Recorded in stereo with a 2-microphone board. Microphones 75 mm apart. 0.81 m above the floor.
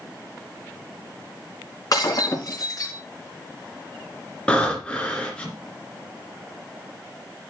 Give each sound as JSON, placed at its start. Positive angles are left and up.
{"t": 1.9, "sound": "breaking glass", "side_deg": 50, "distance_m": 3.5}
{"t": 4.5, "sound": "breathing", "side_deg": 15, "distance_m": 2.5}